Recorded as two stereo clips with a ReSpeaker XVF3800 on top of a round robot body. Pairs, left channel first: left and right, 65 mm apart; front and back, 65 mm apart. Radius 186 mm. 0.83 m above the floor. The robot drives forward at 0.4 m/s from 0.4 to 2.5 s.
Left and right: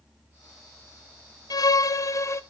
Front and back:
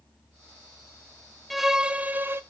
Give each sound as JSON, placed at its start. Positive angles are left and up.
{"t": 1.5, "sound": "a violin", "azimuth_deg": 90, "distance_m": 0.6}